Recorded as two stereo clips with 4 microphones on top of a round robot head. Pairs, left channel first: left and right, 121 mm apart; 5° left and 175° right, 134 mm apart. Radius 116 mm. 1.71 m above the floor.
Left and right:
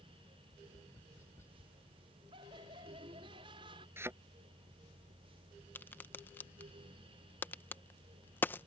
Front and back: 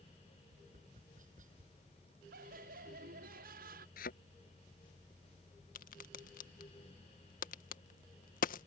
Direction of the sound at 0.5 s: 165° left.